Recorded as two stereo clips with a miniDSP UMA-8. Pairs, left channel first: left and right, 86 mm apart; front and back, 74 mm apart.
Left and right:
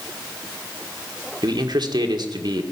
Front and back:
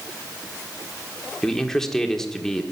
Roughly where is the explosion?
I don't hear an explosion.